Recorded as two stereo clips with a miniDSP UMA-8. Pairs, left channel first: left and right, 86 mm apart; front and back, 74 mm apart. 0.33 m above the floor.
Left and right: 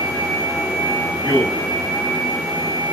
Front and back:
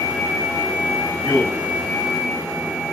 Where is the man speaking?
30° left, 1.5 m.